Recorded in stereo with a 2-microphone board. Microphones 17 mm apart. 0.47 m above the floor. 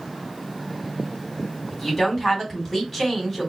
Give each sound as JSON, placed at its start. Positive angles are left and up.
{"t": 1.7, "sound": "a woman speaking", "side_deg": 10, "distance_m": 3.5}